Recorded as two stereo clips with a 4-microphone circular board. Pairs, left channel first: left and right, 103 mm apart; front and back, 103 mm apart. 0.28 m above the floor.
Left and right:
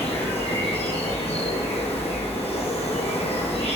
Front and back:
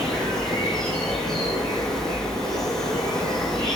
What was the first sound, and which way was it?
An insect, 85° left.